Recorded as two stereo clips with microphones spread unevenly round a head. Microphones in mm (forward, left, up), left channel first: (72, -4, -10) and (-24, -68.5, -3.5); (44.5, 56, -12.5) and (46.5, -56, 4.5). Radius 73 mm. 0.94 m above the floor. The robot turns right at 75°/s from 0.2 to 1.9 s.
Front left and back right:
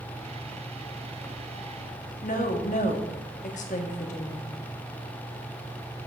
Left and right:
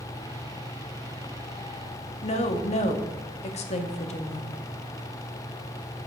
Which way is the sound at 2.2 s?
70° left.